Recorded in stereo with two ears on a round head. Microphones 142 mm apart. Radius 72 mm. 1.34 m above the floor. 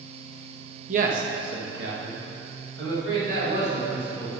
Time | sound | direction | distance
0.9 | a man speaking | 50° right (ahead or behind) | 1.0 m